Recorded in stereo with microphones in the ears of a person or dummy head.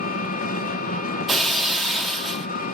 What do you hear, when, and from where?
0.0 s an engine running: 45° left (ahead or behind), 0.9 m
1.3 s breaking glass: centre (ahead or behind), 1.1 m